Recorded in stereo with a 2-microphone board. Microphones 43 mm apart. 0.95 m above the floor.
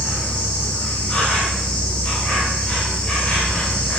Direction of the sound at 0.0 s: 15° left (ahead or behind).